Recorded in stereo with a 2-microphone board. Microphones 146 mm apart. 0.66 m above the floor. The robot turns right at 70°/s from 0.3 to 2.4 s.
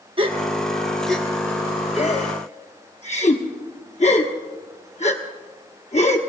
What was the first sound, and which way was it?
A gasp, 35° right (ahead or behind).